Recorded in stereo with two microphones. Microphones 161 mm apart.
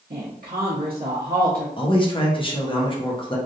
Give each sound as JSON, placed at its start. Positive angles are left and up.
{"t": 0.1, "sound": "a woman speaking", "side_deg": -80, "distance_m": 0.9}
{"t": 1.8, "sound": "a man speaking", "side_deg": 35, "distance_m": 0.9}